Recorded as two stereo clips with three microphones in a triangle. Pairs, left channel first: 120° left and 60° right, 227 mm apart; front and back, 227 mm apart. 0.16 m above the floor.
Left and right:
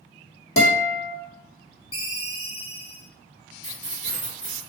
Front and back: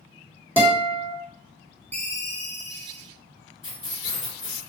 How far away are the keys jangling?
About 1.7 m.